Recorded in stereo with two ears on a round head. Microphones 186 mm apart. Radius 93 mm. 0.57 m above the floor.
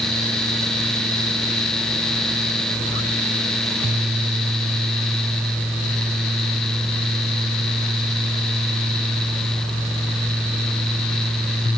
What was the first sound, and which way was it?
Only background noise.